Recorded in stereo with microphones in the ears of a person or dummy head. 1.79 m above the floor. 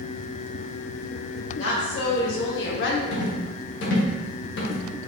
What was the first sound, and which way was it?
A woman speaking, 75° left (ahead or behind).